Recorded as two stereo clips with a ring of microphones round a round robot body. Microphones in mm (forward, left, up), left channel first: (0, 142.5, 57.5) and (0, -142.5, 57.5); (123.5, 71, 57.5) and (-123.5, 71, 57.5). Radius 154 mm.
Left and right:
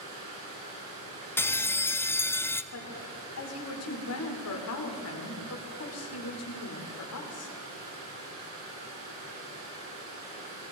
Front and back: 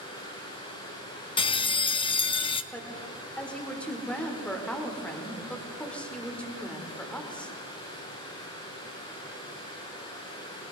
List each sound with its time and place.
0.0 s running water: 75° right, 6.5 m
1.4 s a bell: 25° left, 0.5 m
2.7 s a woman speaking: 85° left, 2 m